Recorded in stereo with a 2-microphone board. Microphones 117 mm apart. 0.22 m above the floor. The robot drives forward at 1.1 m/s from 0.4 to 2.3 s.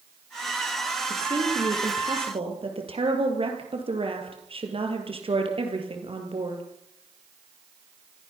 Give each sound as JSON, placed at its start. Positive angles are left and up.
{"t": 1.1, "sound": "a woman speaking", "side_deg": -40, "distance_m": 5.0}